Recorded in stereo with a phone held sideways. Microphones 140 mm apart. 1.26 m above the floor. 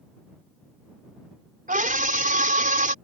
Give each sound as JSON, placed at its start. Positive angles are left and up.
{"t": 1.7, "sound": "a scream", "side_deg": -75}